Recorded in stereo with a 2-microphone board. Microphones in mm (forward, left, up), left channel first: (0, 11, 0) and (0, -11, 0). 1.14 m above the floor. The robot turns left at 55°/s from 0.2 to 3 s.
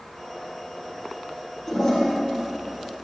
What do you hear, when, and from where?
1.7 s a toilet flushing: 15° left (ahead or behind), 1.7 m; by 2.1 s 40° left (ahead or behind), 1.7 m